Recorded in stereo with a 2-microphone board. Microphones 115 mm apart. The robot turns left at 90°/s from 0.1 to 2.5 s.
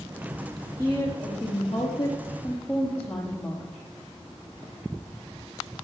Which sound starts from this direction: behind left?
A woman speaking, at 0.8 s.